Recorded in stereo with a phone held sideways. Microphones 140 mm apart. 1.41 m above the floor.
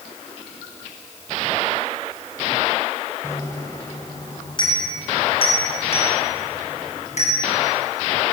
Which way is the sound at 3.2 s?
20° left (ahead or behind).